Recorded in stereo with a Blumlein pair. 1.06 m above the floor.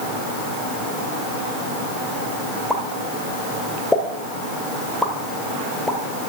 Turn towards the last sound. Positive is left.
turn(degrees=5)